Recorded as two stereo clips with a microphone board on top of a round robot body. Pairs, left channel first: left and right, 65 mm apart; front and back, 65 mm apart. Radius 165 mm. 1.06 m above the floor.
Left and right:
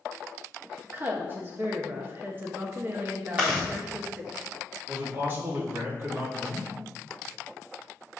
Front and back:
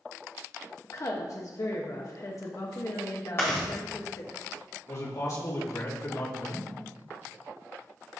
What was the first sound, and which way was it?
A woman speaking, 35° right.